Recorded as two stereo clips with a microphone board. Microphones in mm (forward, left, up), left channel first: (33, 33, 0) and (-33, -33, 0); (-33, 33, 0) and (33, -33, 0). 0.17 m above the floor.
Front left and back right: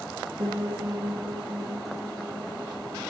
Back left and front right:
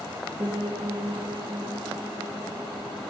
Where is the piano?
110° right, 3.5 m.